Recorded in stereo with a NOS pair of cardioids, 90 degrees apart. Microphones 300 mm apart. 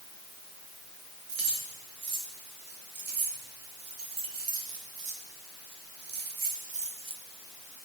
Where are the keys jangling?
60° right, 3.5 m; by 7.2 s 20° right, 1.1 m.